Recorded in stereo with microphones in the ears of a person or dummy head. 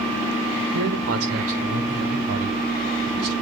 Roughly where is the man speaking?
Right.